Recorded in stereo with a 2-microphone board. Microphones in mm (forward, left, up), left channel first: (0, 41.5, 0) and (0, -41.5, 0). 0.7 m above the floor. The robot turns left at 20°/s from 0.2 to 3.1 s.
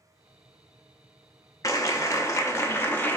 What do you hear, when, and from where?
1.6 s a clap: 40° left (ahead or behind), 0.6 m; by 3.2 s 20° left (ahead or behind), 0.6 m